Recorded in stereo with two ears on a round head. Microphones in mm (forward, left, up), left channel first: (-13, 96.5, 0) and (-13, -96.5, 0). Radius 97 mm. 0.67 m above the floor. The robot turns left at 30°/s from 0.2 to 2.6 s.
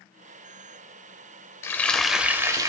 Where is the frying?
10° left (ahead or behind), 0.9 m; by 2.7 s 15° right (ahead or behind), 0.9 m.